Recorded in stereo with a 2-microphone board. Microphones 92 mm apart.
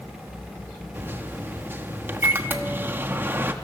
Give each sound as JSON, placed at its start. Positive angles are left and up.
{"t": 0.9, "sound": "a microwave", "side_deg": -25, "distance_m": 1.2}